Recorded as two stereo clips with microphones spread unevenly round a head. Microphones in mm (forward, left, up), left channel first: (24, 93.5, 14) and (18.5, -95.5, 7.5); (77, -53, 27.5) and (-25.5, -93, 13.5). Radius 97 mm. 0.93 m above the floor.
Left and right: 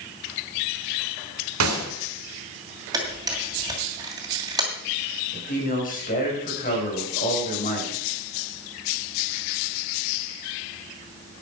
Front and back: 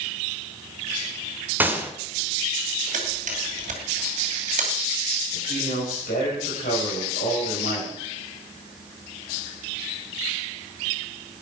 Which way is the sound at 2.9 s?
165° right.